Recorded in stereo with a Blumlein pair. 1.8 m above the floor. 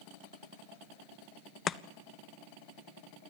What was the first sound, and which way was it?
Chopping, 25° left.